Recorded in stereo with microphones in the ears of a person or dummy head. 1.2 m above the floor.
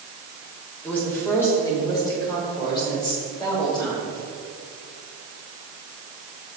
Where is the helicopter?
No helicopter in this recording.